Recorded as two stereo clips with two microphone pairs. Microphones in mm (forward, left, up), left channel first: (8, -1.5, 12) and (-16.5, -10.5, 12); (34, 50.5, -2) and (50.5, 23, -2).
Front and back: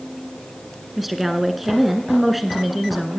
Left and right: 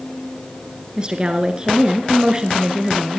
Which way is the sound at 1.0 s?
85° right.